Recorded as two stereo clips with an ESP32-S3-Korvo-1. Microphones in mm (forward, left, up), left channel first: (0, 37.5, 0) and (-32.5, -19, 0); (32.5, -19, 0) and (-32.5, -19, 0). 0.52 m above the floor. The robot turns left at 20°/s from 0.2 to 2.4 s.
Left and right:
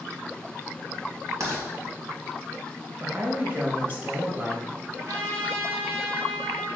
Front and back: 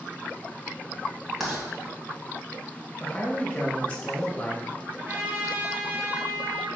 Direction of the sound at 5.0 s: 125° right.